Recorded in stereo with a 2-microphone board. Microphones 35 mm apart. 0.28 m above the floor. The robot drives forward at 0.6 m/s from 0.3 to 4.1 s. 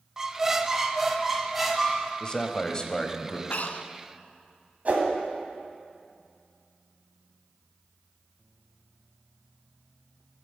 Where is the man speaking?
25° left (ahead or behind), 0.9 m; by 3.4 s 20° left (ahead or behind), 1.2 m.